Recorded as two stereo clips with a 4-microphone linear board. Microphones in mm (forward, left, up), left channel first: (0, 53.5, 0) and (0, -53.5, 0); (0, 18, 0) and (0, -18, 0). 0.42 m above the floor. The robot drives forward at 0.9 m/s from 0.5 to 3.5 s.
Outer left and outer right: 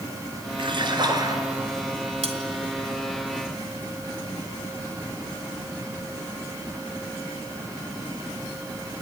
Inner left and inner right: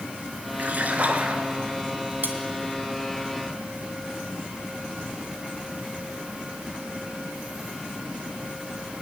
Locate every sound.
0.6 s a splash: 50° right (ahead or behind), 1.7 m; by 1.4 s 35° right (ahead or behind), 2 m
2.2 s cutlery clinking: 70° right (ahead or behind), 1.9 m; by 2.4 s 75° right (ahead or behind), 1.9 m